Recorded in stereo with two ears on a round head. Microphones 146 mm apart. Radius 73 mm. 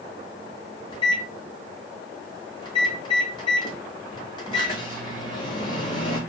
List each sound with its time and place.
0.9 s a microwave: 30° left (ahead or behind), 0.9 m